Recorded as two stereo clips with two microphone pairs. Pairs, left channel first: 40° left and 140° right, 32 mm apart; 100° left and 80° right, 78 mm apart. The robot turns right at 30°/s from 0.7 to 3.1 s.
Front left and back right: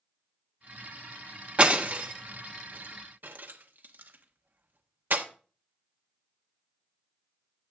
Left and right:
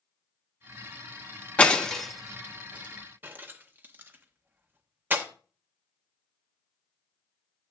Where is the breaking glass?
170° left, 1.0 m; by 5.2 s 145° right, 1.0 m.